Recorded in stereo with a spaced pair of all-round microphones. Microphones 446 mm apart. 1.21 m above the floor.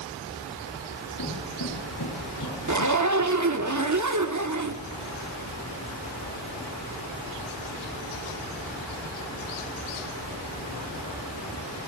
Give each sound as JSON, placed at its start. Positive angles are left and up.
{"t": 1.2, "sound": "footsteps", "side_deg": 50, "distance_m": 8.5}
{"t": 2.7, "sound": "a zipper", "side_deg": -40, "distance_m": 0.9}